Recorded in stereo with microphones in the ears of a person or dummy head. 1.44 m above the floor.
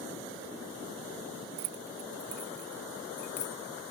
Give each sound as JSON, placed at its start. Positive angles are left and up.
{"t": 1.6, "sound": "keys jangling", "side_deg": -55}